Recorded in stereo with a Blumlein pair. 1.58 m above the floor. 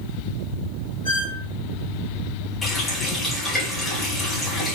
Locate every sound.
1.1 s a squeak: 60° left, 3 m
2.6 s a running tap: 10° left, 5 m